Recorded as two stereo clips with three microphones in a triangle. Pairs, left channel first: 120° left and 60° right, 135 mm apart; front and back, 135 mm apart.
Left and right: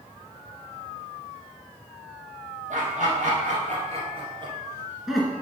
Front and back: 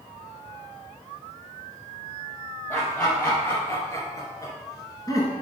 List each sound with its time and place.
2.7 s laughter: 75° right, 3.5 m; by 5.3 s 45° left, 1.5 m